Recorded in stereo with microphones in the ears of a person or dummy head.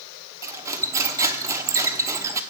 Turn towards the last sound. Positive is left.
turn(degrees=-10)  # may be behind; listen again after turning